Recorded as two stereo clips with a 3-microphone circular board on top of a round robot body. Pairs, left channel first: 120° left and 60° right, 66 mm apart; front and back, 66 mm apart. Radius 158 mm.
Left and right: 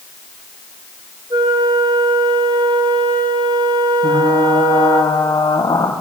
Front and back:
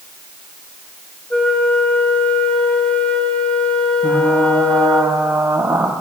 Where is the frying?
140° left, 4 m.